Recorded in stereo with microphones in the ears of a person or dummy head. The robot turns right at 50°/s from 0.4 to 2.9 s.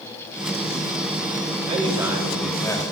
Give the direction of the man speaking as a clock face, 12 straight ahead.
1 o'clock.